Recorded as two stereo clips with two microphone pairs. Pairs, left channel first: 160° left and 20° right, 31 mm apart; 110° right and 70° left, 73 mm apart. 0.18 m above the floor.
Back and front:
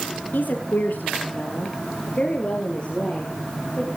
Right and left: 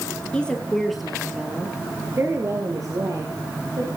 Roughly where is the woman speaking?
Behind.